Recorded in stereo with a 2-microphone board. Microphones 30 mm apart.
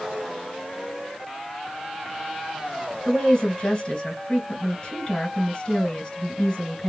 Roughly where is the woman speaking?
Left.